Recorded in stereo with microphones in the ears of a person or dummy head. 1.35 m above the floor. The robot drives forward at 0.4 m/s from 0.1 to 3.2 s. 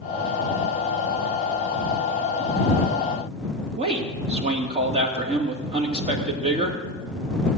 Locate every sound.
3.8 s a man speaking: 25° right (ahead or behind), 2.5 m